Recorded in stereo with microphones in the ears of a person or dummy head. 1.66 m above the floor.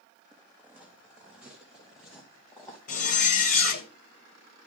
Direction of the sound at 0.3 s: 10° right (ahead or behind).